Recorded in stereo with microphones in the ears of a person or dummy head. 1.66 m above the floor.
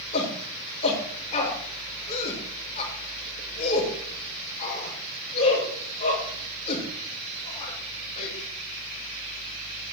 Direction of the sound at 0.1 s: 35° left (ahead or behind).